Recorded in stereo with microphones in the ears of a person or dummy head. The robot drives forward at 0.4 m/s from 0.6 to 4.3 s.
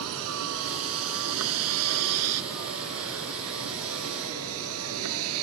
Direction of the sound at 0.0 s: 75° right (ahead or behind).